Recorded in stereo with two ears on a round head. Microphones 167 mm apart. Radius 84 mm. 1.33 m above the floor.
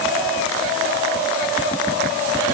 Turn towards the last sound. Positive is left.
No sound to turn to.